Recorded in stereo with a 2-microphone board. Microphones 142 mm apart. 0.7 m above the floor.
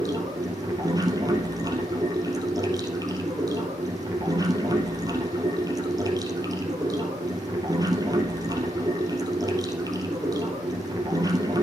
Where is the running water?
25° right (ahead or behind), 2 m.